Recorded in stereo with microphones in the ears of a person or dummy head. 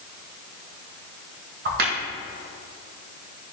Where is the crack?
45° right (ahead or behind), 0.8 m.